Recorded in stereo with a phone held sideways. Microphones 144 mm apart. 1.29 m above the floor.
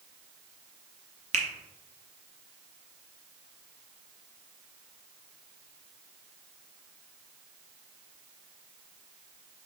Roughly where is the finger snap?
Right.